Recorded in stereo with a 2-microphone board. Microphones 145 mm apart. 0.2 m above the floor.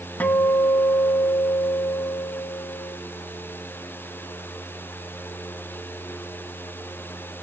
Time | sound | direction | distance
0.2 | a guitar | 10° left (ahead or behind) | 1.1 m